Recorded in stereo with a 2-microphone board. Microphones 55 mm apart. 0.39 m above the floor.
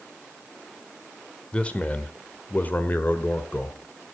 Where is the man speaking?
25° left (ahead or behind), 1.3 m; by 3.8 s 35° left (ahead or behind), 1.6 m.